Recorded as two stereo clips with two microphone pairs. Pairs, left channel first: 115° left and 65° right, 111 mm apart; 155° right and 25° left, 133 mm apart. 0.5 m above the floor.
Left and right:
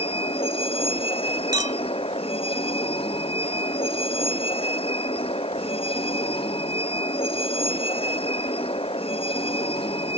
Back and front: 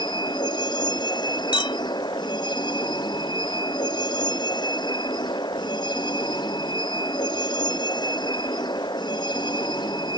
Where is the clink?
110° right.